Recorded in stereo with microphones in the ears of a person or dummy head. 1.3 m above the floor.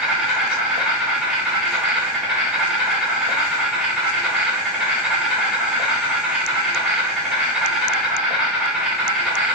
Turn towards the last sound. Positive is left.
turn(degrees=-5)  # may be behind; listen again after turning